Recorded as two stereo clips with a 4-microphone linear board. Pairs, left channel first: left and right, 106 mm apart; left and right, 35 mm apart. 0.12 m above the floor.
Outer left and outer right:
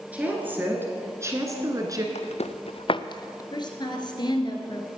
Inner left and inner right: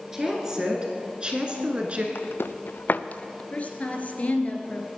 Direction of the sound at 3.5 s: 45° left (ahead or behind).